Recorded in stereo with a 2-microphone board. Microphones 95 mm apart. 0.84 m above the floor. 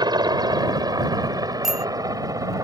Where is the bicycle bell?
5° right (ahead or behind).